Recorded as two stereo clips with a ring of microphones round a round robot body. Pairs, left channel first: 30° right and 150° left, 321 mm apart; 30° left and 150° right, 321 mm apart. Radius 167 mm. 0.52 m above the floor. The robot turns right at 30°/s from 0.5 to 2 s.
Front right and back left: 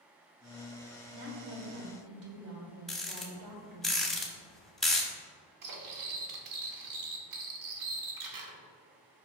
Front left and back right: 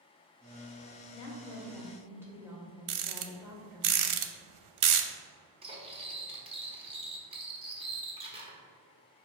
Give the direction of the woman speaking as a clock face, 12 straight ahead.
9 o'clock.